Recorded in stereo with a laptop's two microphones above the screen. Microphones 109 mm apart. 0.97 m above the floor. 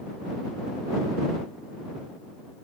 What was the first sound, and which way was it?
Only background noise.